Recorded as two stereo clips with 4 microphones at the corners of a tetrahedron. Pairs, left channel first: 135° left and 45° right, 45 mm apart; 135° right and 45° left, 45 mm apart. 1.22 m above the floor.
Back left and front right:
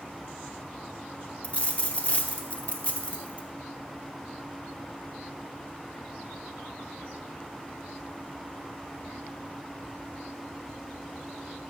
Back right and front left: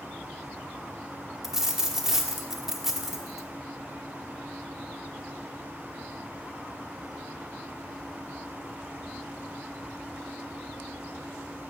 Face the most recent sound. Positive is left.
turn(degrees=120)